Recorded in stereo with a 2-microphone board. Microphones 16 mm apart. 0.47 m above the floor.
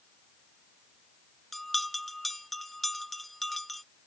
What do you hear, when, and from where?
1.5 s a bell: 5° left (ahead or behind)